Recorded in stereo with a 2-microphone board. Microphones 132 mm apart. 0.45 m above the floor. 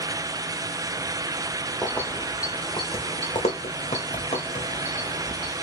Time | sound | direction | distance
1.8 | keys jangling | 10° left (ahead or behind) | 1.0 m